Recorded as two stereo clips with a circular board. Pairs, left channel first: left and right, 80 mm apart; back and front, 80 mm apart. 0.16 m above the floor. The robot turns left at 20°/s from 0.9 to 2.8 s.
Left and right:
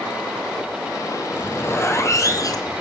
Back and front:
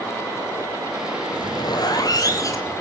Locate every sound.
1.3 s a zipper: 155° left, 1.4 m; by 2.8 s 125° left, 1.4 m